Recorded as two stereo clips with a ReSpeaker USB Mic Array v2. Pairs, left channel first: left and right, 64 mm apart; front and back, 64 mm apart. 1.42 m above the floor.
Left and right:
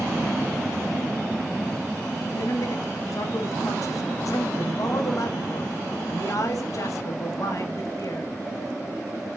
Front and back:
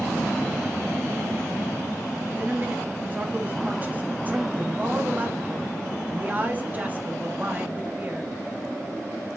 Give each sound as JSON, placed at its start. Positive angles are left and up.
{"t": 2.3, "sound": "a man speaking", "azimuth_deg": 115, "distance_m": 2.5}